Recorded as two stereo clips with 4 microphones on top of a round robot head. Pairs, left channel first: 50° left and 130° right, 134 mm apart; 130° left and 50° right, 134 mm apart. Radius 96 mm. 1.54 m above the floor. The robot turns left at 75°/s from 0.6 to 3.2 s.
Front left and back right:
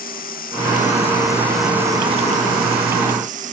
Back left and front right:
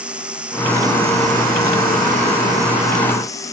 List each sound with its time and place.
0.0 s running water: 35° left; by 3.5 s 160° right